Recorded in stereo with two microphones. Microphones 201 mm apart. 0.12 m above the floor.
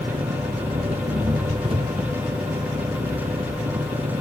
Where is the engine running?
30° right (ahead or behind).